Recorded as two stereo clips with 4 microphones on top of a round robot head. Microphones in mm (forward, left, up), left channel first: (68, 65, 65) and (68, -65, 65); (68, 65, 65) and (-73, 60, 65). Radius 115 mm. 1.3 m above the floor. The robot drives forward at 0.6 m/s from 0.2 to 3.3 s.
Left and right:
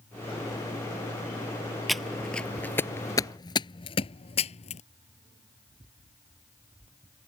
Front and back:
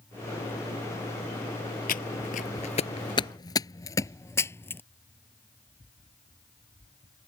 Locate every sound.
1.9 s footsteps: straight ahead; by 4.8 s 75° left